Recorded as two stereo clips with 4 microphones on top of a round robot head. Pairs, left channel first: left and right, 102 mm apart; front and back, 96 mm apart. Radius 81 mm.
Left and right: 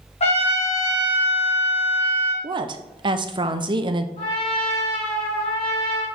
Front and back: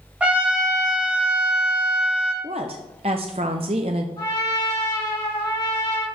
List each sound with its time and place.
0.2 s a trumpet: 105° left, 1.8 m
2.4 s a woman speaking: 130° right, 0.7 m
4.2 s a trumpet: 40° left, 2.5 m